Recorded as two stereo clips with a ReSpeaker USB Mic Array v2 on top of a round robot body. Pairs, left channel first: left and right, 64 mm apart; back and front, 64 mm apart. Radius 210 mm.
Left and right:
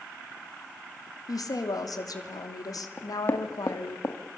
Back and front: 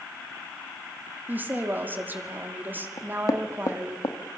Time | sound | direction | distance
1.3 | a woman speaking | 60° left | 3 m
3.0 | knocking | 150° left | 1.7 m